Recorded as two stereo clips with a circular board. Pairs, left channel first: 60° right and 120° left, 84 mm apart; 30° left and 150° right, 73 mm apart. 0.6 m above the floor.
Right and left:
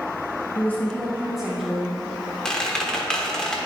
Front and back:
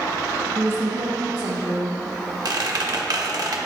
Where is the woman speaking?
100° right, 0.7 m; by 2.0 s 170° right, 1.5 m.